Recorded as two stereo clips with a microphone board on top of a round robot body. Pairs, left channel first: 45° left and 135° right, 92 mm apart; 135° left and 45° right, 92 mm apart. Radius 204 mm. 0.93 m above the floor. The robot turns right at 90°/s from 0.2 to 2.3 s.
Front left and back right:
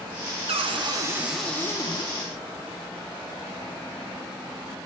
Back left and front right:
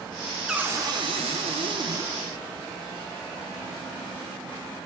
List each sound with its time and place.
0.5 s a cupboard door: 130° right, 0.5 m; by 2.1 s 20° left, 0.5 m